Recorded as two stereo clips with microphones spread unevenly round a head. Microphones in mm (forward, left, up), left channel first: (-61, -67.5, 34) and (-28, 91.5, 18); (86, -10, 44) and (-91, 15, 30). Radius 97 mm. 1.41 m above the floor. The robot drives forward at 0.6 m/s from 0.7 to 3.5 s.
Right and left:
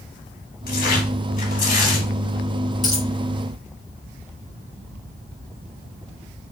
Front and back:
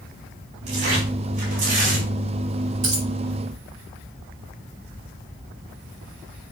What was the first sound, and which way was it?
Tearing paper, 135° right.